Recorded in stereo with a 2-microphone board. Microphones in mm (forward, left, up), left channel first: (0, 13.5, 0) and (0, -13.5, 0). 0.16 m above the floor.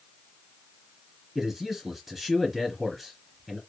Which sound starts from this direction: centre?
A man speaking, at 1.4 s.